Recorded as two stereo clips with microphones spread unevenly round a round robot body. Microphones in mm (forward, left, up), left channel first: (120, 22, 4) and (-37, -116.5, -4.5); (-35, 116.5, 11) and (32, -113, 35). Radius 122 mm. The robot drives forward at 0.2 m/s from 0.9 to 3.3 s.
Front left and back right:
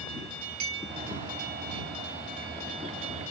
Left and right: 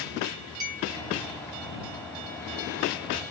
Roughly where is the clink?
Behind right.